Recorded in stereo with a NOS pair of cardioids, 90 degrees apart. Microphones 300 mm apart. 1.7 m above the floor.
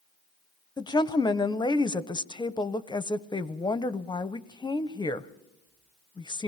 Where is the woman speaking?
15° left, 1.0 m.